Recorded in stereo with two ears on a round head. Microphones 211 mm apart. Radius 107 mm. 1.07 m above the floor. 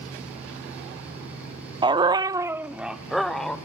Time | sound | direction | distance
1.8 | a dog barking | 20° right (ahead or behind) | 0.7 m